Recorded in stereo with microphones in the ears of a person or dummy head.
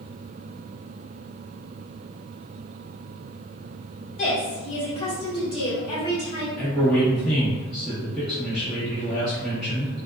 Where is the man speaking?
Centre (ahead or behind), 1.3 m.